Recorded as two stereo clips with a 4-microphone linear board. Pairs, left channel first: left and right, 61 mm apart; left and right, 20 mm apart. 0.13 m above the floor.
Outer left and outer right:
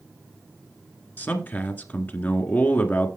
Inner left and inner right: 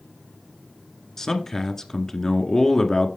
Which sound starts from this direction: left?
A man speaking, at 1.2 s.